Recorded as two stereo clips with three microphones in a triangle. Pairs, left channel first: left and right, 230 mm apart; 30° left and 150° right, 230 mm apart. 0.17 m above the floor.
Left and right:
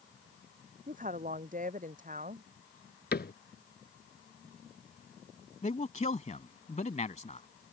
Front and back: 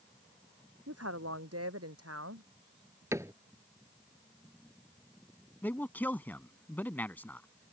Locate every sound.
0.9 s a woman speaking: 145° right
3.1 s a cupboard door: 135° left
5.6 s a man speaking: 105° left